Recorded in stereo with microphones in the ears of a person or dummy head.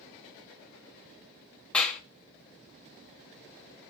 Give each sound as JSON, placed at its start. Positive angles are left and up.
{"t": 1.7, "sound": "a clap", "side_deg": 5, "distance_m": 1.4}